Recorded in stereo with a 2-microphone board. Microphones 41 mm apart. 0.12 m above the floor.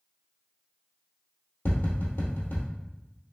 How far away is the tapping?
About 1.7 m.